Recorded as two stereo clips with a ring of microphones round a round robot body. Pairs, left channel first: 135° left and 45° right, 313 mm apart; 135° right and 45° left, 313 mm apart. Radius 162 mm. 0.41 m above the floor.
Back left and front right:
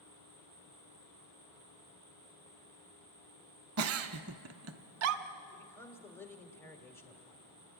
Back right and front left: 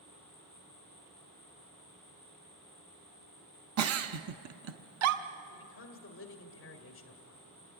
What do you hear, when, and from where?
0.0 s an insect: 85° left, 6 m
3.8 s a giggle: straight ahead, 0.7 m
5.5 s a man speaking: 145° right, 1.7 m